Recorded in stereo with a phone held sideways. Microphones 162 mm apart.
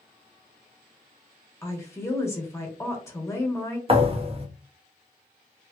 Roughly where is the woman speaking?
Centre.